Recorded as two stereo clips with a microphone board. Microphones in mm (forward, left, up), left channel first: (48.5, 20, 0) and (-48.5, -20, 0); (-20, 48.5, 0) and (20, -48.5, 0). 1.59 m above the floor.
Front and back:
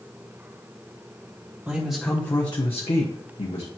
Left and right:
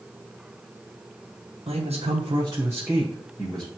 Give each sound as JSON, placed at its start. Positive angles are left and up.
{"t": 1.7, "sound": "a man speaking", "azimuth_deg": -85, "distance_m": 1.4}